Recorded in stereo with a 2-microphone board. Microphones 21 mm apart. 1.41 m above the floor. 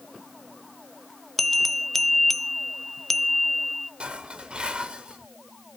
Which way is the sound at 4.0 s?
50° right (ahead or behind).